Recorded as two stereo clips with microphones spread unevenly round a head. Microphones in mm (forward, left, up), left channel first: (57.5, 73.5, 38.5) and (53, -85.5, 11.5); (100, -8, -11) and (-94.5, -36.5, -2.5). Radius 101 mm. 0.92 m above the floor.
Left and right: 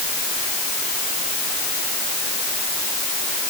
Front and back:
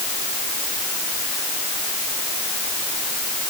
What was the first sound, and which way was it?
Only background noise.